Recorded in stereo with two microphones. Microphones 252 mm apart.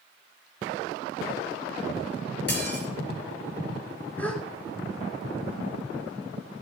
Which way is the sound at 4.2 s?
5° left (ahead or behind).